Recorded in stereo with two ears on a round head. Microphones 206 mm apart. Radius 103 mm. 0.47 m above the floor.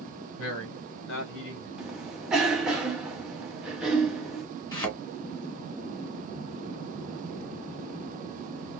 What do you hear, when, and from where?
0.4 s a man speaking: 60° left (ahead or behind), 1.7 m; by 1.7 s 55° left (ahead or behind), 2.5 m
1.8 s a cough: 5° right (ahead or behind), 1.4 m
4.7 s a thud: 20° left (ahead or behind), 1.6 m